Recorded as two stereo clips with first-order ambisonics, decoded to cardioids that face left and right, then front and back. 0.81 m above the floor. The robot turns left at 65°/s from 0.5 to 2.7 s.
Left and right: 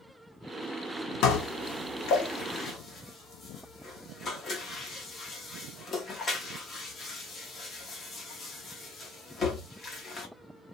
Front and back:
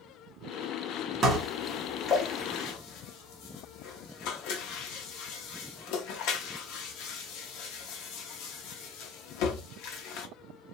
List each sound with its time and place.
1.2 s dishes clattering: 120° left, 0.8 m; by 10.3 s 25° left, 0.8 m